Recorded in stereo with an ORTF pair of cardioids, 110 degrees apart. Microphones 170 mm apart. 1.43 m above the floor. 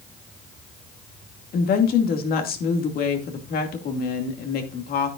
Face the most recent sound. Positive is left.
turn(degrees=60)